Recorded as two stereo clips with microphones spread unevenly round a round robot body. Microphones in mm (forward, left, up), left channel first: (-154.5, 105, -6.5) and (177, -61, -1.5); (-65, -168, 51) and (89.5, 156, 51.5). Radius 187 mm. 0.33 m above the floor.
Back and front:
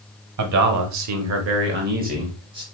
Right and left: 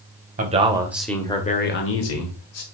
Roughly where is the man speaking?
Ahead.